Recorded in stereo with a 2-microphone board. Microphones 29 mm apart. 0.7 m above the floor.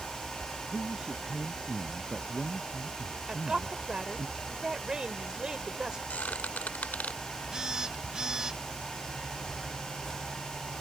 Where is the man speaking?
30° right (ahead or behind); by 4.3 s 5° right (ahead or behind).